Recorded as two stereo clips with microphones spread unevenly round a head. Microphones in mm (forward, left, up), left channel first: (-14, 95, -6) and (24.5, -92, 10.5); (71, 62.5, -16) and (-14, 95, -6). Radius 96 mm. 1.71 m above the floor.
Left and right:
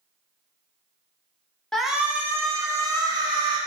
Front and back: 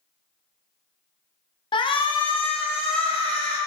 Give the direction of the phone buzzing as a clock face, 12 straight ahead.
I don't hear a phone buzzing.